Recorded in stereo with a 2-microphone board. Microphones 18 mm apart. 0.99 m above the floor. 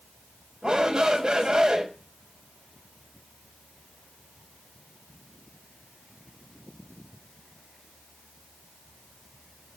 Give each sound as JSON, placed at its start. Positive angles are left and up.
{"t": 0.6, "sound": "a shout", "side_deg": -55, "distance_m": 4.0}